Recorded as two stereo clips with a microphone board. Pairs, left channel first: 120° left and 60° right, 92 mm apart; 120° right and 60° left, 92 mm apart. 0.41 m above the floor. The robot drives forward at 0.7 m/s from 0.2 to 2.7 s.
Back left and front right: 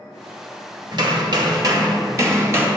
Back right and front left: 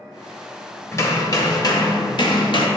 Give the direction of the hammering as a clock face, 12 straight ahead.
2 o'clock.